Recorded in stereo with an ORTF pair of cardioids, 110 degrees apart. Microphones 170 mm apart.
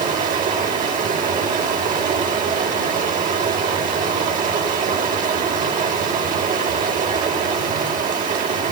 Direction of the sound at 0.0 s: 55° right.